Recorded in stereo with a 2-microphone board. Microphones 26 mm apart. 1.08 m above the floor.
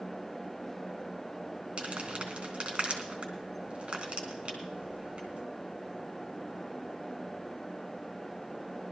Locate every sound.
1.8 s crumpling: 45° right (ahead or behind), 3 m